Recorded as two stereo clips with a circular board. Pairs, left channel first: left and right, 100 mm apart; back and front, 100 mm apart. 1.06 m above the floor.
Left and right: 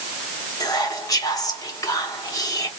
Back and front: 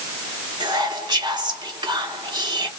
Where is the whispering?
40° left, 1.2 m.